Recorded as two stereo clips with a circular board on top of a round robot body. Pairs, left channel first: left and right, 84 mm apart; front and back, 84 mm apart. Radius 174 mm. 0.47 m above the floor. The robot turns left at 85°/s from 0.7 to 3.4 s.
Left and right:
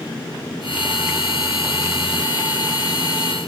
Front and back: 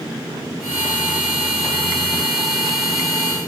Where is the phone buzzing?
No phone buzzing in this recording.